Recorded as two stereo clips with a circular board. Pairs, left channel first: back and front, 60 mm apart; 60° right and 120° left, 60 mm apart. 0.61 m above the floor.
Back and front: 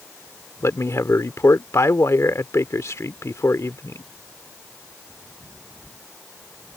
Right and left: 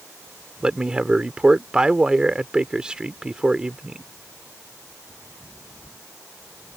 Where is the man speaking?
170° right.